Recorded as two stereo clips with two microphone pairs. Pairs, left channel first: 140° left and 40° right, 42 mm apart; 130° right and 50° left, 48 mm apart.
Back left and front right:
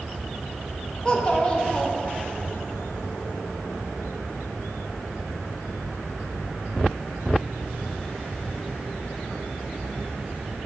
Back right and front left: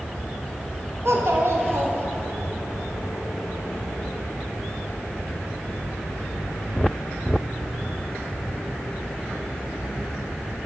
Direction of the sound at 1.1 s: 70° left.